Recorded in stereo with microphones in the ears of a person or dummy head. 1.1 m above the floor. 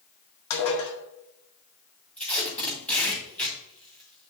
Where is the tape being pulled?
10° left (ahead or behind), 2.5 m.